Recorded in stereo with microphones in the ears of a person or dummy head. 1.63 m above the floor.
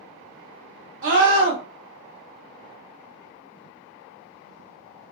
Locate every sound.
1.0 s a scream: 75° right (ahead or behind), 1.9 m